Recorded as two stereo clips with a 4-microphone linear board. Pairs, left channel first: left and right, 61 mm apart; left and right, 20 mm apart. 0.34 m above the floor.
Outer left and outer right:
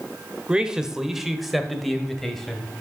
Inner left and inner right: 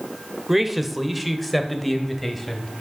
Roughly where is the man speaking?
Centre.